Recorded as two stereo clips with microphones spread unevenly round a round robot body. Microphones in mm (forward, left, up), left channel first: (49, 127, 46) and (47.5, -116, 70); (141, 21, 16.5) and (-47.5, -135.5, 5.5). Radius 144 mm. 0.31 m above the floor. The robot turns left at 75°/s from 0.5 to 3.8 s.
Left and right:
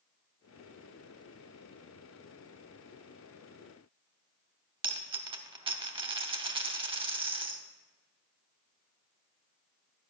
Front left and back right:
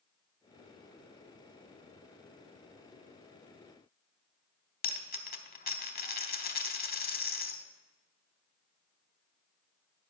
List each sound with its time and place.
4.8 s a dropped coin: 20° right, 1.0 m